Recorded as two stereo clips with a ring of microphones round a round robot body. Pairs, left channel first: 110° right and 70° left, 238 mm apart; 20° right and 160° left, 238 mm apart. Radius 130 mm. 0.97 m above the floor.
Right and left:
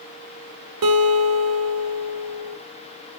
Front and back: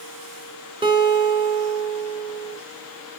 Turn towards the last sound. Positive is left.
turn(degrees=85)